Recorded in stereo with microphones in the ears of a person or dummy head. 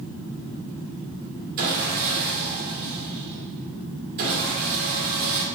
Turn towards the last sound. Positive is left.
turn(degrees=-50)  # may be behind; listen again after turning